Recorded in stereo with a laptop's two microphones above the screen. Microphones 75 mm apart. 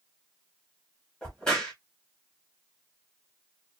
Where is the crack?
10° left (ahead or behind), 1.1 m.